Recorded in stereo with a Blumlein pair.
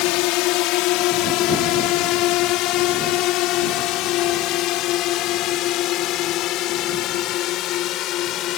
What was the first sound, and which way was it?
A drone, 40° left.